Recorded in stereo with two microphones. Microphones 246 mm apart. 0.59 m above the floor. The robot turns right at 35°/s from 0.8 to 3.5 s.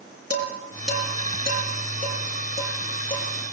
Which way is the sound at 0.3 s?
75° right (ahead or behind).